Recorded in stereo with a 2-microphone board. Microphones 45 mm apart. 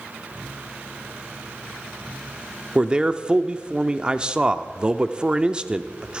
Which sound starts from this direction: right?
A man speaking, at 2.8 s.